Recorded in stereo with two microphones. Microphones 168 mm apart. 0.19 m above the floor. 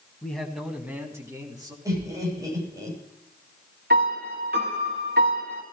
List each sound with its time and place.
0.2 s a man speaking: 10° left (ahead or behind), 1.7 m; by 1.8 s 25° right (ahead or behind), 3 m
1.9 s laughter: 20° right (ahead or behind), 8.5 m
3.9 s a piano: 75° right (ahead or behind), 3 m